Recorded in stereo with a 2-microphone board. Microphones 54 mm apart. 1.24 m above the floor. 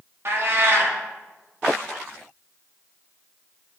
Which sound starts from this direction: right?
A cat meowing, at 0.2 s.